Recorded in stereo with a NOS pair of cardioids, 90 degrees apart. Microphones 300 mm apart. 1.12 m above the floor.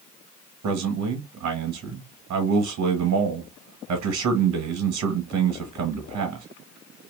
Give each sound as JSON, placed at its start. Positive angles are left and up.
{"t": 0.6, "sound": "a man speaking", "azimuth_deg": -65, "distance_m": 1.5}